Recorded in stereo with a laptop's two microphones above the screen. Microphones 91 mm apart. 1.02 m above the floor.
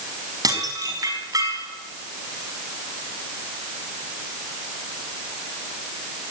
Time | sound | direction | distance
0.4 | dishes clattering | 40° right (ahead or behind) | 5.5 m